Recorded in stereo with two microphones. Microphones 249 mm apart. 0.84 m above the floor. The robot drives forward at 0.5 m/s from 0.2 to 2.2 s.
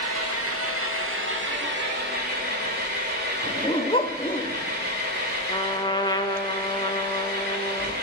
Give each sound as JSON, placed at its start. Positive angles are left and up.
{"t": 0.0, "sound": "an engine running", "side_deg": -70, "distance_m": 1.2}
{"t": 3.4, "sound": "a dog barking", "side_deg": 20, "distance_m": 0.7}
{"t": 5.5, "sound": "a trumpet", "side_deg": 15, "distance_m": 0.6}